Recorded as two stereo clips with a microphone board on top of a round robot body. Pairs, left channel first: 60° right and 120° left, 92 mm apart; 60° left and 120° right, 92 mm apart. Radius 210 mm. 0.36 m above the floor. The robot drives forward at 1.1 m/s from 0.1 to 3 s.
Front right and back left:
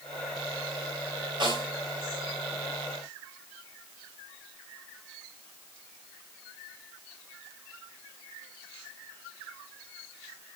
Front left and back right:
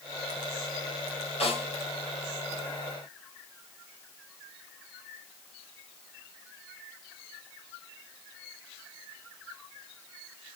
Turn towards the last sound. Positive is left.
turn(degrees=95)